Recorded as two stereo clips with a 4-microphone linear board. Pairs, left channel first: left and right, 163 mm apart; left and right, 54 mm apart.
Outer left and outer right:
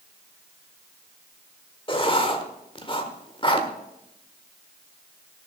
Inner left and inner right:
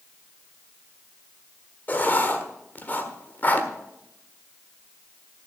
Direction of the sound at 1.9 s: 35° left (ahead or behind).